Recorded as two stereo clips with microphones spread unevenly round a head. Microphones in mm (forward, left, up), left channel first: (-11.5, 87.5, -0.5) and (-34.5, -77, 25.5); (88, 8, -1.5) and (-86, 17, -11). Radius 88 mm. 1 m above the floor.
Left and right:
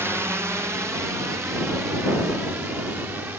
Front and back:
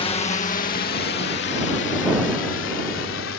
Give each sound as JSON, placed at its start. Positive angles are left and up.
{"t": 0.0, "sound": "a drone", "azimuth_deg": -20}